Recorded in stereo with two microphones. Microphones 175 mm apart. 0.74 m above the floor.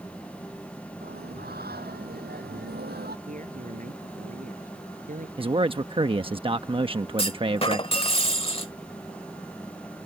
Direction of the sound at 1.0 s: 65° right (ahead or behind).